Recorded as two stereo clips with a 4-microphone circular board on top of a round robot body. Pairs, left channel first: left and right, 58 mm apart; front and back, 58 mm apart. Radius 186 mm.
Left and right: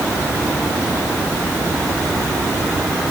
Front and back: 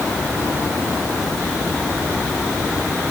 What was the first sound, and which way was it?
Only background noise.